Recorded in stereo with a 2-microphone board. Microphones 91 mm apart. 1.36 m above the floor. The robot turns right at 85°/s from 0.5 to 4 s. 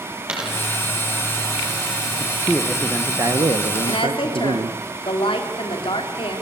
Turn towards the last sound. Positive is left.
turn(degrees=75)  # may be behind; listen again after turning